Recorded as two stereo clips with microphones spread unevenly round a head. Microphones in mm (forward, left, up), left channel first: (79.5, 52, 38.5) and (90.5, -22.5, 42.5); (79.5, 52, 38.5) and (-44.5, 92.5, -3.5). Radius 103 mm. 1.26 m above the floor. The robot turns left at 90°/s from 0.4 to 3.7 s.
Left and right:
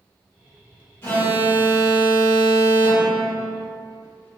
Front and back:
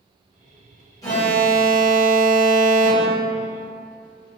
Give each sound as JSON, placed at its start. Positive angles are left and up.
{"t": 1.0, "sound": "an alarm", "azimuth_deg": 40, "distance_m": 1.8}